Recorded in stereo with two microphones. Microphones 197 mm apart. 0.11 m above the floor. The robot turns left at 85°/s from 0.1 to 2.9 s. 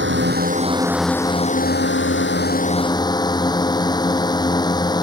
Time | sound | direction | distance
0.0 | a drone | 100° right | ?